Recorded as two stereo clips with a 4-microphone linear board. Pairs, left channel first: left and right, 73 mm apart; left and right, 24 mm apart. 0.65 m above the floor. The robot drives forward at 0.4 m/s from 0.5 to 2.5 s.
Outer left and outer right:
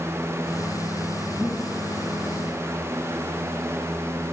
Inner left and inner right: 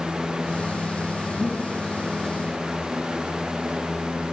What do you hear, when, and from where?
1.4 s breathing: 25° right (ahead or behind), 3 m